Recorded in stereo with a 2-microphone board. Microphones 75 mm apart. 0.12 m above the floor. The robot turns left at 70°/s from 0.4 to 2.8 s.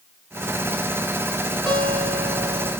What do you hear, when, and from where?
1.7 s a guitar: 20° left (ahead or behind), 1.4 m; by 2.7 s centre (ahead or behind), 1.4 m